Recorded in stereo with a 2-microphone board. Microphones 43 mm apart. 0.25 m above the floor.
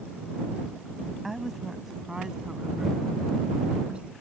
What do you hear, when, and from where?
1.2 s a woman speaking: 5° right (ahead or behind); by 4.1 s 25° right (ahead or behind)